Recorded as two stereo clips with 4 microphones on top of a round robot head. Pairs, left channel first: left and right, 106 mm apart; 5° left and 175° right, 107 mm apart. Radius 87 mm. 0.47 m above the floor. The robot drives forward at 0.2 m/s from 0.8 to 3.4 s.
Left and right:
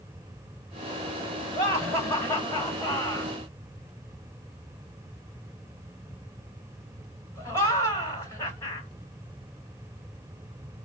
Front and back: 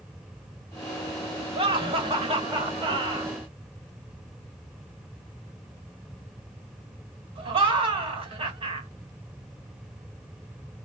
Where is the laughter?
155° left, 4.5 m; by 8.9 s 160° left, 4.5 m.